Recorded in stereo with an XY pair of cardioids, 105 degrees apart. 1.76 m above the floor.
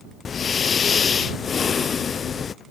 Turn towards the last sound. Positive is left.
turn(degrees=40)